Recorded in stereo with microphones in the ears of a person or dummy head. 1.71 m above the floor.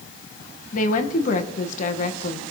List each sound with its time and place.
0.7 s a woman speaking: 50° left (ahead or behind), 1.9 m